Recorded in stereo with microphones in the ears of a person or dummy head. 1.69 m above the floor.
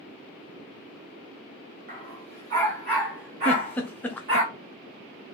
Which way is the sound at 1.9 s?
35° right (ahead or behind).